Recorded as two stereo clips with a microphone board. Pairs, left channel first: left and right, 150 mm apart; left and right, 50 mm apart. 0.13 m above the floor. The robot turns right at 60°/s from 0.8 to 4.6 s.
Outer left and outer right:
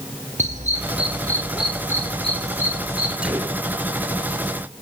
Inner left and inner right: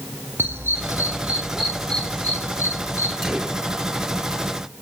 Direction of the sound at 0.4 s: 50° right (ahead or behind).